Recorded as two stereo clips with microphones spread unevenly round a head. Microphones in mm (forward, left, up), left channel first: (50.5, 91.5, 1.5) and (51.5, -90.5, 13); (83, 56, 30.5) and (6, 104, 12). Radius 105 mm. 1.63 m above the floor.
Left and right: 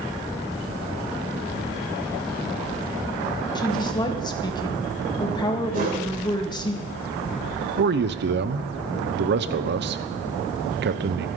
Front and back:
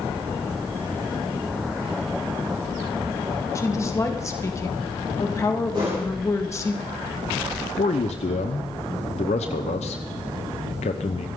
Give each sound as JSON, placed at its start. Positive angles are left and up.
{"t": 3.5, "sound": "a woman speaking", "azimuth_deg": 25, "distance_m": 2.0}
{"t": 5.7, "sound": "a whoosh", "azimuth_deg": -140, "distance_m": 3.0}
{"t": 7.8, "sound": "a man speaking", "azimuth_deg": -60, "distance_m": 0.9}